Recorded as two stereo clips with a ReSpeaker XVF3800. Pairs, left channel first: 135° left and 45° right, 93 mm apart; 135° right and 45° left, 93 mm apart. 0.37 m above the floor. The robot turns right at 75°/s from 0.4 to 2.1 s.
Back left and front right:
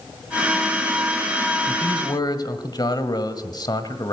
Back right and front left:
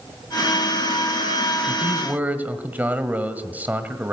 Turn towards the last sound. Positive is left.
turn(degrees=115)